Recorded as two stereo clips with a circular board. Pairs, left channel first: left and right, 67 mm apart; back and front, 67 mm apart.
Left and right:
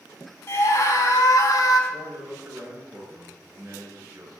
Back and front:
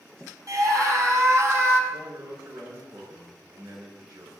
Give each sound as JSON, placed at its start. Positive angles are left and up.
{"t": 0.5, "sound": "a scream", "azimuth_deg": 40, "distance_m": 5.5}
{"t": 1.9, "sound": "a man speaking", "azimuth_deg": -30, "distance_m": 8.5}